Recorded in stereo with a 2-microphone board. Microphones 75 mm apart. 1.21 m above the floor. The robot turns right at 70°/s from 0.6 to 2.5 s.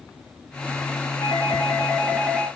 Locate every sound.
1.2 s a doorbell: 100° left, 1.1 m; by 2.5 s 170° right, 1.1 m